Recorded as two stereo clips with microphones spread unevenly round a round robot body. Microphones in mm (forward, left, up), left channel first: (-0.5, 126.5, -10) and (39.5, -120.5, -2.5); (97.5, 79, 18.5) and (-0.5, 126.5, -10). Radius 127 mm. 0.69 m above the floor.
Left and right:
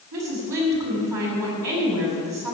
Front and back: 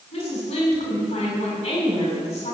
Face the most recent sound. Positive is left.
turn(degrees=-90)